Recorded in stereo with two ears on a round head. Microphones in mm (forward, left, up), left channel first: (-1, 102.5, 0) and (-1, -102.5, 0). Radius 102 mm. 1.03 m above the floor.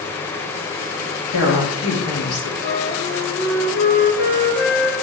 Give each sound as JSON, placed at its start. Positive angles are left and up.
{"t": 1.3, "sound": "a woman speaking", "side_deg": 75, "distance_m": 2.5}
{"t": 2.6, "sound": "a flute", "side_deg": 55, "distance_m": 1.4}